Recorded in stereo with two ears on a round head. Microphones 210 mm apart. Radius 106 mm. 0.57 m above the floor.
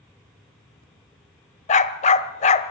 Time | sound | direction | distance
1.7 | a dog barking | 30° left (ahead or behind) | 0.8 m